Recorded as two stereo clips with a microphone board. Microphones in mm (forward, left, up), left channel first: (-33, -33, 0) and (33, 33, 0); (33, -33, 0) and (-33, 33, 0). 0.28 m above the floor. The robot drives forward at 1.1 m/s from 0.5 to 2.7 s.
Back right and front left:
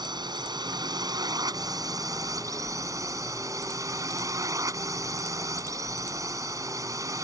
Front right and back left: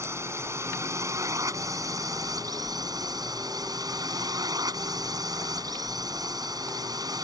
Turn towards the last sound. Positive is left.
turn(degrees=95)